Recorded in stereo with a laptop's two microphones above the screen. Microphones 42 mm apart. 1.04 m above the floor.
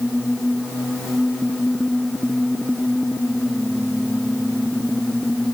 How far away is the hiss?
No hiss in this recording.